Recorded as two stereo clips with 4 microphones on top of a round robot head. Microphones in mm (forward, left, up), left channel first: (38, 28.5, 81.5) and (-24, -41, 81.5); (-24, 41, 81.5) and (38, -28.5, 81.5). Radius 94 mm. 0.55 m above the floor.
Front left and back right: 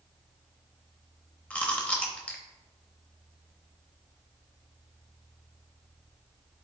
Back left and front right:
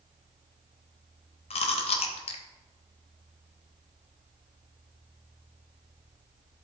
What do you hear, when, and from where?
1.5 s chewing: 125° left, 0.8 m